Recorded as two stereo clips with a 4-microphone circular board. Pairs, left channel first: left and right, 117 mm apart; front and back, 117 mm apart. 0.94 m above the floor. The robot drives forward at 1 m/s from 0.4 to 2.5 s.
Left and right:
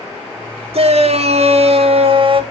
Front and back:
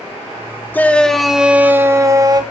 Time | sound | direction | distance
0.7 | a shout | 70° right | 1.8 m